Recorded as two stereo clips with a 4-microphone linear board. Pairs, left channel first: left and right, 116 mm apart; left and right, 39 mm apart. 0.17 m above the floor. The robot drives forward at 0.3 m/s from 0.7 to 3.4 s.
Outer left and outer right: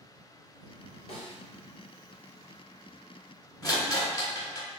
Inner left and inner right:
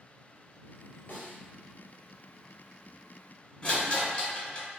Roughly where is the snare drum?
Left.